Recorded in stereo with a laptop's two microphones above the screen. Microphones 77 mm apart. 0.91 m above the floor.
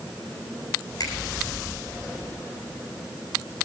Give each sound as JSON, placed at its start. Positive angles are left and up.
{"t": 1.0, "sound": "a finger snap", "side_deg": 50, "distance_m": 8.0}